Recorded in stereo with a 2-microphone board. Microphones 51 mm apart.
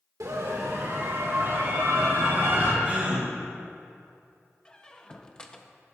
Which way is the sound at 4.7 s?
20° left (ahead or behind).